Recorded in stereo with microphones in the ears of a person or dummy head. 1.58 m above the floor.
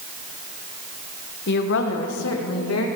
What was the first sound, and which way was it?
A woman speaking, 55° left (ahead or behind).